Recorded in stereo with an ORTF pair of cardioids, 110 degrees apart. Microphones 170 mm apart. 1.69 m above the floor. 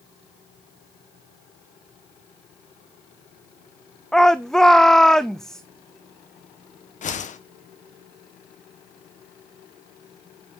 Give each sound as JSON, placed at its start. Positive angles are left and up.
{"t": 4.1, "sound": "a shout", "azimuth_deg": 5, "distance_m": 0.6}
{"t": 7.0, "sound": "a whoosh", "azimuth_deg": 45, "distance_m": 1.3}